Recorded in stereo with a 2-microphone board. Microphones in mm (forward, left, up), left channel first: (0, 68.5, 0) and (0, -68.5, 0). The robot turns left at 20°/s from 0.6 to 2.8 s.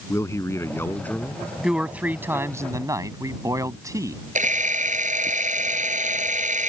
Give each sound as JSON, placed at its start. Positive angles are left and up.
{"t": 0.1, "sound": "a man speaking", "side_deg": 20}
{"t": 1.6, "sound": "a man speaking", "side_deg": -5}
{"t": 4.3, "sound": "a camera shutter", "side_deg": -65}